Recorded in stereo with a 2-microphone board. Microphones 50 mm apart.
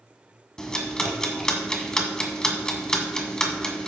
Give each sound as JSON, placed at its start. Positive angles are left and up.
{"t": 0.6, "sound": "ticking", "side_deg": 15, "distance_m": 1.6}